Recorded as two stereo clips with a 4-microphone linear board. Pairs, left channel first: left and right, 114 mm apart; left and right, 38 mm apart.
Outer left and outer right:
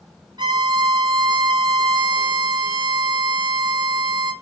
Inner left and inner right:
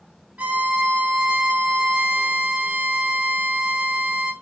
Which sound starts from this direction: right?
A violin, at 0.4 s.